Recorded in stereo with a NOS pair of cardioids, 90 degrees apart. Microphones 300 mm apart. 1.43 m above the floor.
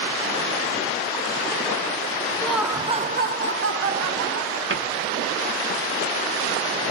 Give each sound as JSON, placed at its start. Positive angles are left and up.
{"t": 2.4, "sound": "laughter", "azimuth_deg": 5, "distance_m": 0.8}
{"t": 4.7, "sound": "a cupboard door", "azimuth_deg": -35, "distance_m": 1.3}